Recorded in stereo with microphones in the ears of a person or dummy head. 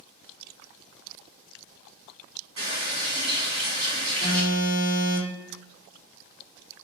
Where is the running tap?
35° right (ahead or behind), 1.5 m.